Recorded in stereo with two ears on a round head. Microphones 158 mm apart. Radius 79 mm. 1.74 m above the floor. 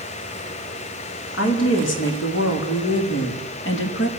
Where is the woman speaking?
80° left, 4.5 m; by 4.1 s 70° left (ahead or behind), 3 m.